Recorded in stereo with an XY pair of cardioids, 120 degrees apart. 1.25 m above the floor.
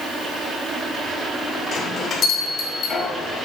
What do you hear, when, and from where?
1.7 s a bell: 50° left, 2 m